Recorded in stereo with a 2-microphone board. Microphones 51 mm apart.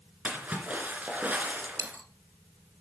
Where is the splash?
30° right (ahead or behind), 2.5 m.